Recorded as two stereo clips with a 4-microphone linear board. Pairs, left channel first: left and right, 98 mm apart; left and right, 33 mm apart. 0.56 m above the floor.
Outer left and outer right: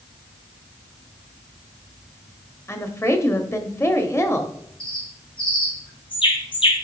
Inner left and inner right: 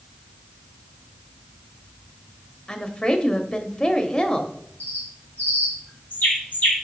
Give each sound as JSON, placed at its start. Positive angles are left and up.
{"t": 2.7, "sound": "a woman speaking", "side_deg": 25, "distance_m": 1.0}
{"t": 4.8, "sound": "a bird", "side_deg": 55, "distance_m": 2.5}